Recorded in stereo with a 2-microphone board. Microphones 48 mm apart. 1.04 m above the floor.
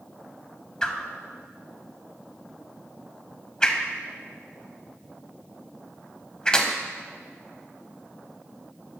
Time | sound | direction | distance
0.8 | a whoosh | 15° left (ahead or behind) | 0.9 m